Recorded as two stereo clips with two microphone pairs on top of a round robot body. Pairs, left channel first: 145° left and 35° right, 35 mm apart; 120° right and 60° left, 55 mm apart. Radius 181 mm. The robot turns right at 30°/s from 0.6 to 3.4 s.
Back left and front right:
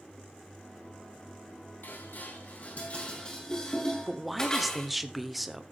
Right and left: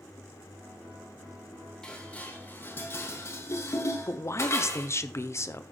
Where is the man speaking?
125° right, 1.4 m.